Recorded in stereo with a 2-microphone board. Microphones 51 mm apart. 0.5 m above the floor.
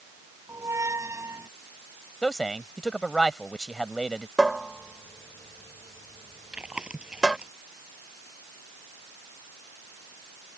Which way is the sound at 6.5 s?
20° right (ahead or behind).